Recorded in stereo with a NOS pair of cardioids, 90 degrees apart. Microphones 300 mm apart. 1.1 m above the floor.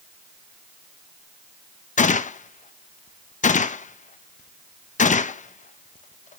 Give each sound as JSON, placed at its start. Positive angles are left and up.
{"t": 2.0, "sound": "a gunshot", "azimuth_deg": 25, "distance_m": 0.6}